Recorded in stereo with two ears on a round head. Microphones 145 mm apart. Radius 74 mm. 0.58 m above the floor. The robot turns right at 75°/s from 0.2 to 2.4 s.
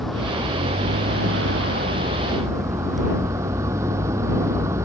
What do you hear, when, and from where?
0.0 s a vehicle: straight behind; by 4.8 s 15° right